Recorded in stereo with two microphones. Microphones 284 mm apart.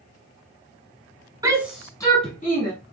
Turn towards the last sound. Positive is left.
turn(degrees=35)  # may be behind; listen again after turning